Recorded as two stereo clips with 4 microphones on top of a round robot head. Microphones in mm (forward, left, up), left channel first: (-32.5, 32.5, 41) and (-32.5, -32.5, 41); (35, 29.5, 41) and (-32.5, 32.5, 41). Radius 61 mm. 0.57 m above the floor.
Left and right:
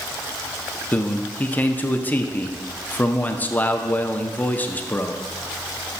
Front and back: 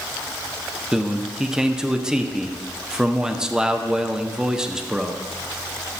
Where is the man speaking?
110° left, 0.7 m.